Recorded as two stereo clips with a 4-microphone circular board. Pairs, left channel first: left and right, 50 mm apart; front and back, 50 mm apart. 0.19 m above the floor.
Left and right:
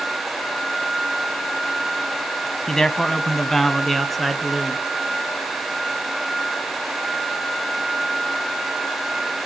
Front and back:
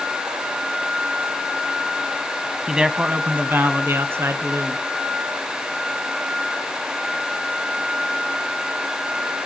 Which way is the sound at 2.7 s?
135° left.